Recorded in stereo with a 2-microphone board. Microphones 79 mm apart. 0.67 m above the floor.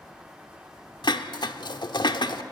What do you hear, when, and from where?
1.0 s dishes clattering: 70° left (ahead or behind), 1.1 m